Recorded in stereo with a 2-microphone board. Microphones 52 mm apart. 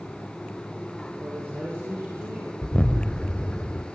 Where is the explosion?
25° left (ahead or behind), 1.1 m.